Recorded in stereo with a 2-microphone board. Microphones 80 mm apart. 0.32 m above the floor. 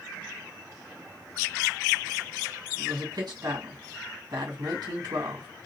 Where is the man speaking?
60° right (ahead or behind), 2.5 m.